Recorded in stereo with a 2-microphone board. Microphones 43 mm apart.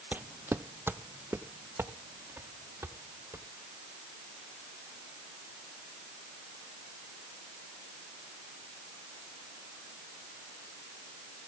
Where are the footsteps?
40° right (ahead or behind), 0.5 m; by 3.5 s 80° right, 3 m.